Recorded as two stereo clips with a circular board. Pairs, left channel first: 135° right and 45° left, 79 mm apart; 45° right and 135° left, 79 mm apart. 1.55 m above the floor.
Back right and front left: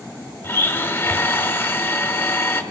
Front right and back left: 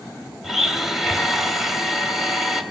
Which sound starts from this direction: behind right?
A blender, at 0.4 s.